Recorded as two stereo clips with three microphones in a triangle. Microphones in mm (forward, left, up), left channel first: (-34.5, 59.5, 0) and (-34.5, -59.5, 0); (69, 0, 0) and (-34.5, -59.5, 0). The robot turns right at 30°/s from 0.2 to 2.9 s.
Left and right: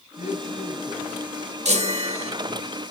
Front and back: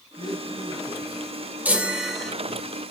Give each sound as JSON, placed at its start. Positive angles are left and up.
{"t": 0.2, "sound": "a man speaking", "azimuth_deg": 80, "distance_m": 5.5}
{"t": 1.6, "sound": "a chime", "azimuth_deg": -75, "distance_m": 2.5}